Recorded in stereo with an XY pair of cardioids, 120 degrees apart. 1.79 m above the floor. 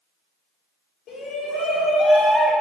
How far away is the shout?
About 1.6 m.